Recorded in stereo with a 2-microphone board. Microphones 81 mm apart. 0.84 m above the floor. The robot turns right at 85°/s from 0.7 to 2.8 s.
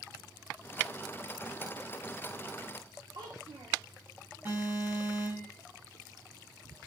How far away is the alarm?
About 5.5 m.